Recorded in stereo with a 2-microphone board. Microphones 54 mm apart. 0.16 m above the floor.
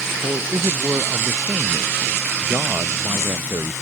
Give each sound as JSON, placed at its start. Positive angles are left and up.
{"t": 0.2, "sound": "a man speaking", "side_deg": -80}